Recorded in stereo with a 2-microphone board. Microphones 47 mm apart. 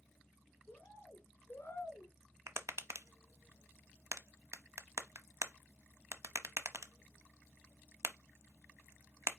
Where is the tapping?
75° right (ahead or behind), 0.8 m.